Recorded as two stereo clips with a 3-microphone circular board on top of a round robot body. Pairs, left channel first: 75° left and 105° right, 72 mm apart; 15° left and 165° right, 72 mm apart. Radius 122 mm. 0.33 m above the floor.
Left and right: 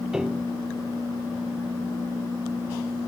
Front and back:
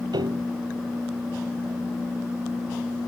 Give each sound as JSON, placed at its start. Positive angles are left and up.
{"t": 0.1, "sound": "a piano", "azimuth_deg": 175}